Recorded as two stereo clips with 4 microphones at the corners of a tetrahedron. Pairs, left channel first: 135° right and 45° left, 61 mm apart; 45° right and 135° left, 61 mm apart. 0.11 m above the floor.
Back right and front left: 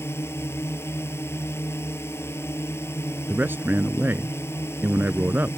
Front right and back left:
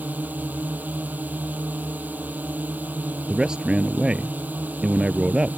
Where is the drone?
170° right.